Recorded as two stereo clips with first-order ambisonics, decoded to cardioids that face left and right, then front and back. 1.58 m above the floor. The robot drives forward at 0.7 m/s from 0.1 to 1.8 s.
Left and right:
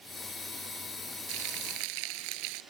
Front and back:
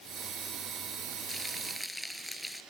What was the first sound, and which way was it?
Frying, 85° right.